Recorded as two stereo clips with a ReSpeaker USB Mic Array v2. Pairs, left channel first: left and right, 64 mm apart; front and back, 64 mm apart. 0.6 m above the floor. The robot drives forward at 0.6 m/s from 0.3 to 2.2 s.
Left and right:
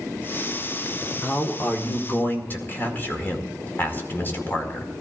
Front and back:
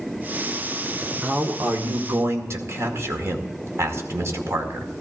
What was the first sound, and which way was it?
A man speaking, 125° left.